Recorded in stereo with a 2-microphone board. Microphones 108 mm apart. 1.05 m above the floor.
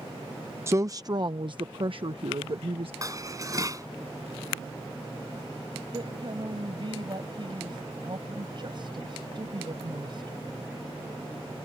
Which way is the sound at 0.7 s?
25° right (ahead or behind).